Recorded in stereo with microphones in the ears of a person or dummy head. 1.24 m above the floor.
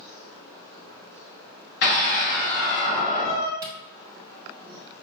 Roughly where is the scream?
Left.